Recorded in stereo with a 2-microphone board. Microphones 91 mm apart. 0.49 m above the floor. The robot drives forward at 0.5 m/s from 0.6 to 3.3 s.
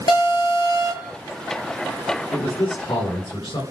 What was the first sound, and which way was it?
An alarm, 60° left (ahead or behind).